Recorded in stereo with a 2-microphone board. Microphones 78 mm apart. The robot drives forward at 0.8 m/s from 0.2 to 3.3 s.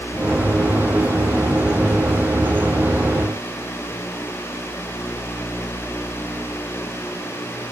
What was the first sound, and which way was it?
Only background noise.